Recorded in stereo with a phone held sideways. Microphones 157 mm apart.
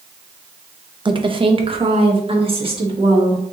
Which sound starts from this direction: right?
A woman speaking, at 1.1 s.